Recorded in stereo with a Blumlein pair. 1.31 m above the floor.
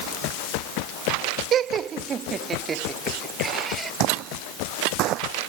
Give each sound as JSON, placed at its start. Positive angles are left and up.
{"t": 1.5, "sound": "laughter", "azimuth_deg": -30}
{"t": 4.0, "sound": "footsteps", "azimuth_deg": -40}